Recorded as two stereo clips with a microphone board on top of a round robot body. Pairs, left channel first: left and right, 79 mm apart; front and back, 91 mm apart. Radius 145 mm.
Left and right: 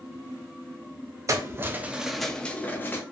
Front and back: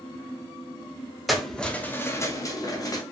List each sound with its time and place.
1.3 s keys jangling: 90° right, 0.7 m; by 3.0 s 35° left, 0.8 m